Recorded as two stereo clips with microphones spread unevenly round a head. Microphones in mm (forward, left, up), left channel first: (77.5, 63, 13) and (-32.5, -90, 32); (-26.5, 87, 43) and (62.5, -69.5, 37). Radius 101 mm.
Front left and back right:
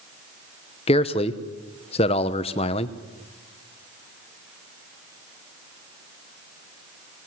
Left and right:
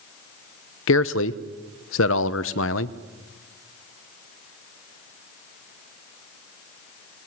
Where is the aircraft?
No aircraft in this recording.